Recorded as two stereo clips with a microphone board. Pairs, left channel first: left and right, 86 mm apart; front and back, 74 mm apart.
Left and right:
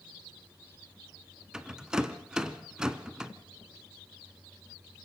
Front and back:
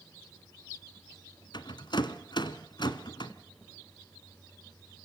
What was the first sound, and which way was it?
A rattle, 10° right.